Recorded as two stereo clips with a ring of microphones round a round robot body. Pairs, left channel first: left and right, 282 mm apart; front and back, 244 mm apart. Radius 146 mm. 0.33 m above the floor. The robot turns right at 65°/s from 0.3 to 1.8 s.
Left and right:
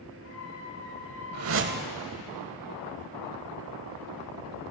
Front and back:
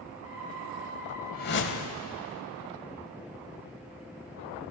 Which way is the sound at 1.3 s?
60° right.